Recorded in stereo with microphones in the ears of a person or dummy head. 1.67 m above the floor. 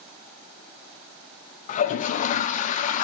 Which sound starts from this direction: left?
A toilet flushing, at 1.7 s.